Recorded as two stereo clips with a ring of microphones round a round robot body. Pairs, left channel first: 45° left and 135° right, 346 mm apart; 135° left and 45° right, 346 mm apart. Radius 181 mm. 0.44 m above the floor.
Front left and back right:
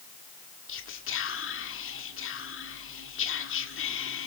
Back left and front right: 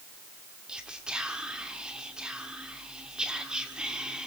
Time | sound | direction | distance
0.7 | whispering | 40° left | 1.4 m